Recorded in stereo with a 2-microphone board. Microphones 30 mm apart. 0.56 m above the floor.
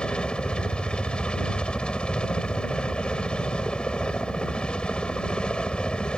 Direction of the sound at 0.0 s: 30° left (ahead or behind).